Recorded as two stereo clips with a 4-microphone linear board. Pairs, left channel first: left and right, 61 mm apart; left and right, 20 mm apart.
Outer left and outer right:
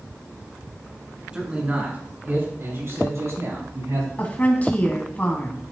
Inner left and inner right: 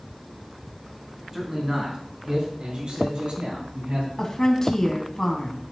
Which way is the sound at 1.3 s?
15° right (ahead or behind).